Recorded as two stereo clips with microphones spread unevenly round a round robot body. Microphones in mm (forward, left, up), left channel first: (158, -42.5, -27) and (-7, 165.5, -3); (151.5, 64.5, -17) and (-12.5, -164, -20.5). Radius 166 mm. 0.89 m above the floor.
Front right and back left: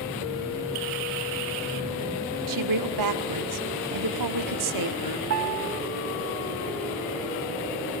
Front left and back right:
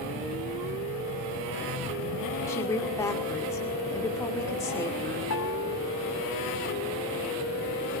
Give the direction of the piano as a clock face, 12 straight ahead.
9 o'clock.